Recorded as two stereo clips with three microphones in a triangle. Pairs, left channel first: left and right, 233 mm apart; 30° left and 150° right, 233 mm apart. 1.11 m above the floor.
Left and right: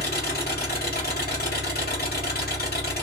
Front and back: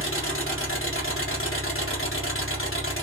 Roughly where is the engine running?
Ahead left.